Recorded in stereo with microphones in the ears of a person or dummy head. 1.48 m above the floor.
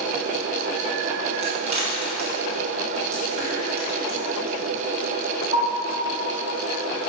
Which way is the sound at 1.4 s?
30° right (ahead or behind).